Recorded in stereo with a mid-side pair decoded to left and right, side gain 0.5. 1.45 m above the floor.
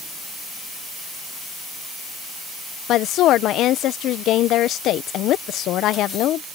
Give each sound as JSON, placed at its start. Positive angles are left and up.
{"t": 2.9, "sound": "a woman speaking", "azimuth_deg": 70}